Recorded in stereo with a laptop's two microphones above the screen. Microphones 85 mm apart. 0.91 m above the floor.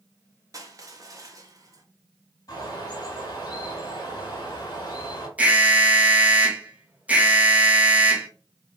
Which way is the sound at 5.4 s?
15° right (ahead or behind).